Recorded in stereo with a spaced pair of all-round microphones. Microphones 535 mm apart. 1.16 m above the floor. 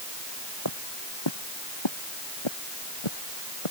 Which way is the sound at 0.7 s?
45° left (ahead or behind).